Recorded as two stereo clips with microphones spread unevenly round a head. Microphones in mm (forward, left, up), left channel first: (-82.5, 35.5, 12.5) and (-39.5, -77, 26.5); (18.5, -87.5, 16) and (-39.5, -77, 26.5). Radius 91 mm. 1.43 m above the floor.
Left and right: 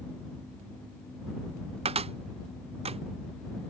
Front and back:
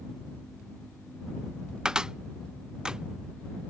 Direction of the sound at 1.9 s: 105° right.